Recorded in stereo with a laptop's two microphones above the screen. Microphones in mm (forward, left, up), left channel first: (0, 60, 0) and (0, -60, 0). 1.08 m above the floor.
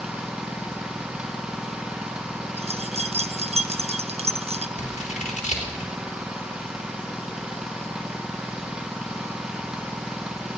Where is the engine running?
5° right (ahead or behind), 0.8 m.